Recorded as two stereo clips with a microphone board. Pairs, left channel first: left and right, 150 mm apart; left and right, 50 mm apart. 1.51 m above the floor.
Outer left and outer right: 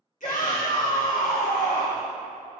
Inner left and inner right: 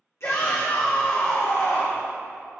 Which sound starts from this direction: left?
A shout, at 0.2 s.